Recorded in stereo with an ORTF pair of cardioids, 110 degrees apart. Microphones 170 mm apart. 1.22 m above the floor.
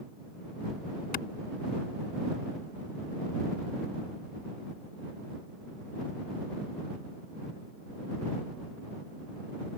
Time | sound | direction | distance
1.1 | a clap | 60° left | ?